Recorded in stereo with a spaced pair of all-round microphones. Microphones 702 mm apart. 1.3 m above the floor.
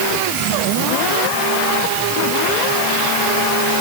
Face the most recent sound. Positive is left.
No sound to turn to.